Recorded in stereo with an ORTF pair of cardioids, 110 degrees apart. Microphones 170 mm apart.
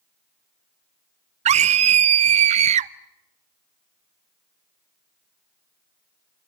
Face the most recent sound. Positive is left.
turn(degrees=-40)